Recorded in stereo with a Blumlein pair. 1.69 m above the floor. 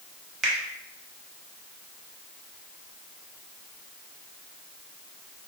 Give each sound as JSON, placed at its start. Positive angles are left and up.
{"t": 0.4, "sound": "a finger snap", "azimuth_deg": -15, "distance_m": 0.7}